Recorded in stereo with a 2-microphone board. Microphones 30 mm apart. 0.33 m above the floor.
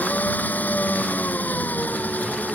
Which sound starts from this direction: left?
An engine running, at 0.0 s.